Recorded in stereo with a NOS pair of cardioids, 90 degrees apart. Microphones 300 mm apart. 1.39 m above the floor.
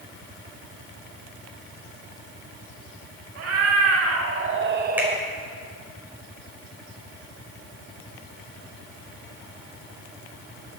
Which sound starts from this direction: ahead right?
A cat meowing, at 3.4 s.